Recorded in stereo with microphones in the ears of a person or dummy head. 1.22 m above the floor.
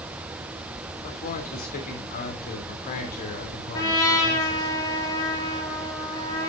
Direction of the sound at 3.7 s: 20° left (ahead or behind).